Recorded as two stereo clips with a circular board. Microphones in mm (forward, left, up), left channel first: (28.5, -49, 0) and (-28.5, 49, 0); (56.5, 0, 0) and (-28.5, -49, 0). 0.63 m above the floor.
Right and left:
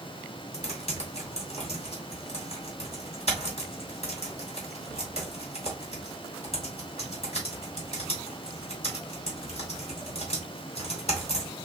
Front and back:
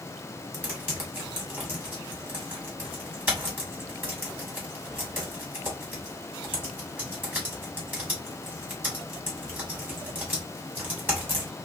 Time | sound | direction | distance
0.5 | typing on a keyboard | 75° right | 2 m